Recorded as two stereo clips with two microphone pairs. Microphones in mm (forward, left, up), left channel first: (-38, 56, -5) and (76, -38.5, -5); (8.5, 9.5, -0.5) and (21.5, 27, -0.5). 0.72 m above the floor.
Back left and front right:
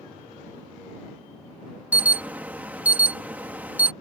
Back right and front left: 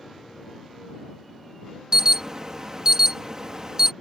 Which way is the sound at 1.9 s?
30° left.